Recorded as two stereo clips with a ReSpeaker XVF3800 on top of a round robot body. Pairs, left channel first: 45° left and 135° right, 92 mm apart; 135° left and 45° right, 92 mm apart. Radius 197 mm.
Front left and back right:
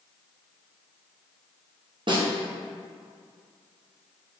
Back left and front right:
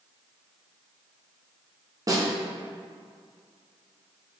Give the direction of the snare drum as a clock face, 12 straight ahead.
3 o'clock.